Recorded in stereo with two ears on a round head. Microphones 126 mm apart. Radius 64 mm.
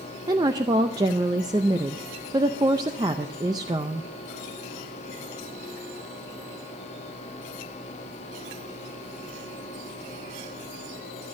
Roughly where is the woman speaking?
Right.